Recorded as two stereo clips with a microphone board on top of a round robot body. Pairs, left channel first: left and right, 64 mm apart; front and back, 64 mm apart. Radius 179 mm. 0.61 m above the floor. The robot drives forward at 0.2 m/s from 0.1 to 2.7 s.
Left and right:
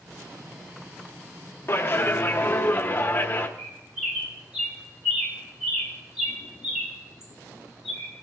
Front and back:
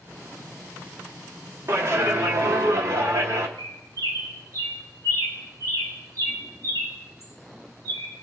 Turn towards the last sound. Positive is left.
turn(degrees=-170)